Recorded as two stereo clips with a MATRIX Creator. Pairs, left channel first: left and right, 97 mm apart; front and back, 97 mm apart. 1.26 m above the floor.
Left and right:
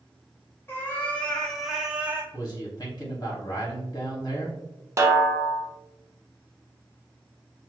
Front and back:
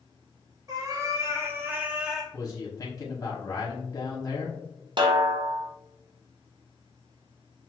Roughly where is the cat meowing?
Behind left.